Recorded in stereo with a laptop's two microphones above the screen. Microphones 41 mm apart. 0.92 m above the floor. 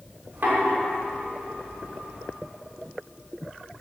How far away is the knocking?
About 2 m.